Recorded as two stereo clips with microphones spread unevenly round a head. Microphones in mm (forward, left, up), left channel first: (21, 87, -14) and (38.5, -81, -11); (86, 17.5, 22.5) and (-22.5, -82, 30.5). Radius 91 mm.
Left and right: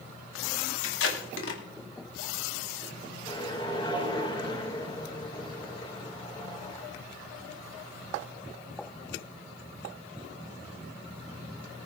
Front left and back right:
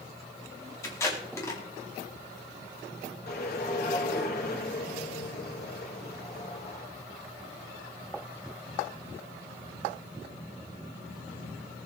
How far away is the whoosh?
About 3 m.